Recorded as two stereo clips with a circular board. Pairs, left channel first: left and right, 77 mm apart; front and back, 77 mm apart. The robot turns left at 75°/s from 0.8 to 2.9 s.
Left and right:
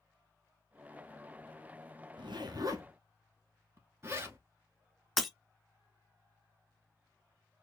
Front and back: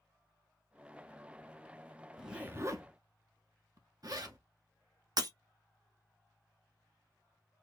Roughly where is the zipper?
Right.